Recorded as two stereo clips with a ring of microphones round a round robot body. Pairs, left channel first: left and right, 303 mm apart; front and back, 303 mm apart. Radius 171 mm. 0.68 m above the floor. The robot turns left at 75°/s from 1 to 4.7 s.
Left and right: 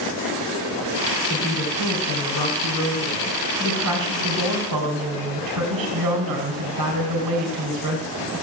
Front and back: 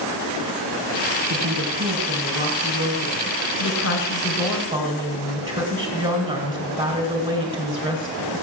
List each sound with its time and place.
1.3 s a woman speaking: 145° left, 3.5 m; by 8.4 s 110° right, 3.5 m